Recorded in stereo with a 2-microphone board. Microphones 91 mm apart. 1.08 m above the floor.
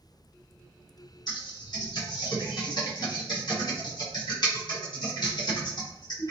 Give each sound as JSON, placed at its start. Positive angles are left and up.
{"t": 1.3, "sound": "typing on a keyboard", "side_deg": 50, "distance_m": 1.7}